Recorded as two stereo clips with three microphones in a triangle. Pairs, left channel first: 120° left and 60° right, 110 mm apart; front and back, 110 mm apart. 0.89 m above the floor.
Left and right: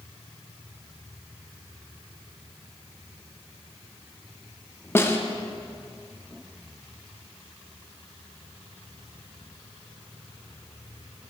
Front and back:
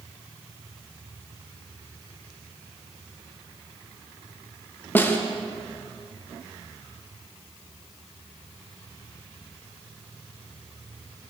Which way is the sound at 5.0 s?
60° left.